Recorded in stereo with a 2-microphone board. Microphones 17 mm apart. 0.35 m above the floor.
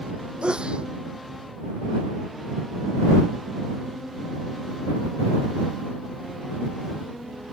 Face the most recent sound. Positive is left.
turn(degrees=-85)